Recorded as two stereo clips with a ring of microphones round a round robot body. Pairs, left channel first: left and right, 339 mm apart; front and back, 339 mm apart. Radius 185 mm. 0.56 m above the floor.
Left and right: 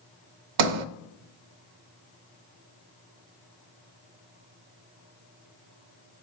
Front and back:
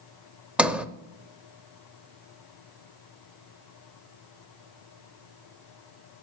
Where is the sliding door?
95° right, 0.6 m.